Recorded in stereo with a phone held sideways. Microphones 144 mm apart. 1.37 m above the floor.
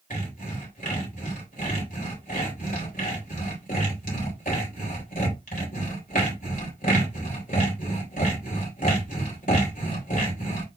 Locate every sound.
0.1 s sawing: 80° left, 3.5 m